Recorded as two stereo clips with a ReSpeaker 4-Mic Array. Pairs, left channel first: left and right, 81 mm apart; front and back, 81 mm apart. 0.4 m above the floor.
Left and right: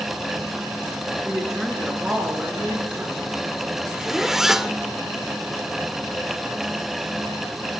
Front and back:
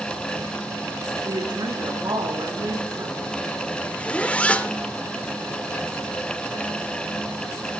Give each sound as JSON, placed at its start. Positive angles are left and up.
{"t": 1.2, "sound": "a woman speaking", "azimuth_deg": -175, "distance_m": 5.0}
{"t": 3.9, "sound": "a zipper", "azimuth_deg": -20, "distance_m": 0.7}